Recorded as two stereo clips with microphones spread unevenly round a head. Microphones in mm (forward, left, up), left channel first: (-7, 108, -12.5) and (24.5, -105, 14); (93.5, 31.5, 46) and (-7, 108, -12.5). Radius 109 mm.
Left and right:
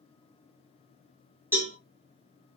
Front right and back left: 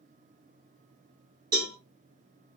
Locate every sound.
1.5 s a cowbell: 165° right, 1.3 m